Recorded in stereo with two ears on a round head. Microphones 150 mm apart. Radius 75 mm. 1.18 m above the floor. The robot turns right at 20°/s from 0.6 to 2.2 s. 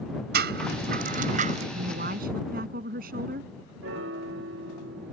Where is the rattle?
65° right (ahead or behind); by 1.6 s 45° right (ahead or behind).